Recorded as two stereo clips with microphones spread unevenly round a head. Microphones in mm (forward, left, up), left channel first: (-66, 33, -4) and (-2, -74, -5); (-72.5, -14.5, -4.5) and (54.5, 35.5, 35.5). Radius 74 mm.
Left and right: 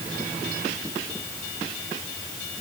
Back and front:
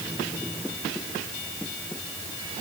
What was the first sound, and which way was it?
Only background noise.